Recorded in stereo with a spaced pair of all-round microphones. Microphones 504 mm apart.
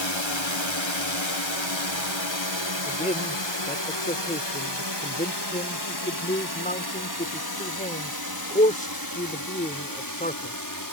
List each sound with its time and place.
0.0 s a drone: 60° left (ahead or behind); by 10.9 s 40° left (ahead or behind)
2.9 s a man speaking: 15° left (ahead or behind)